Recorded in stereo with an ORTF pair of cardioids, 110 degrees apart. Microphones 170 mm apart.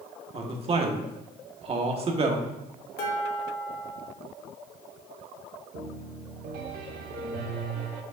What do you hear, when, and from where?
0.3 s a man speaking: 35° right, 1.4 m
3.0 s dishes clattering: 60° left, 2 m
5.7 s a piano: 70° right, 1.2 m